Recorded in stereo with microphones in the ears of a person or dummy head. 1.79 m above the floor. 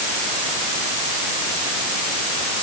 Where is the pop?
I don't hear a pop.